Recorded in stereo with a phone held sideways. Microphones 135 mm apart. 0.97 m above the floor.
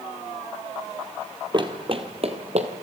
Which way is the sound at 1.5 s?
35° right (ahead or behind).